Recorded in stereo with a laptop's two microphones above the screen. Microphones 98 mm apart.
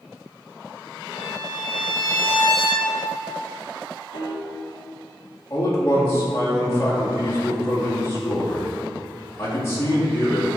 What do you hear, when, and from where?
1.1 s a violin: 65° left (ahead or behind), 1.6 m
4.1 s a piano: 65° left (ahead or behind), 1.3 m
5.5 s a man speaking: 30° left (ahead or behind), 1.8 m